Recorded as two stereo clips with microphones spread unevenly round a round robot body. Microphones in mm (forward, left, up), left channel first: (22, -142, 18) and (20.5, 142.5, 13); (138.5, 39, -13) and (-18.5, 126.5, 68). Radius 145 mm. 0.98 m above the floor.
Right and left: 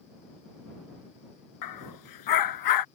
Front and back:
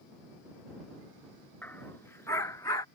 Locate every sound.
1.6 s a dog barking: 115° right; by 2.9 s 110° right